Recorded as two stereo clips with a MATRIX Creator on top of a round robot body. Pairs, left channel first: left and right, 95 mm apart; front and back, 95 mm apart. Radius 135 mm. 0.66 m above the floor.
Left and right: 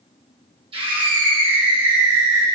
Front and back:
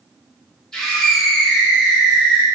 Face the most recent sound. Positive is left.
turn(degrees=-100)